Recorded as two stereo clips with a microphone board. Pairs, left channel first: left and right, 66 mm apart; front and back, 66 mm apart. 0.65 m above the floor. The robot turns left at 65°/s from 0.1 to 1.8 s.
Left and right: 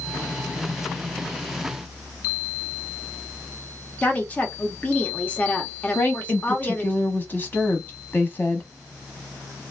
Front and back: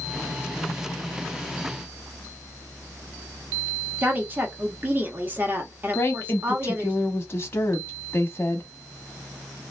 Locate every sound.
4.0 s a woman speaking: 140° left, 0.8 m
6.0 s a woman speaking: 35° left, 0.7 m